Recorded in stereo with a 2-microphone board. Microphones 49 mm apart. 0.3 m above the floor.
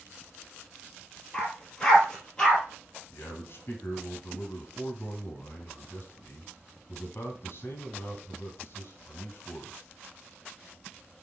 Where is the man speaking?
50° left (ahead or behind), 1.8 m.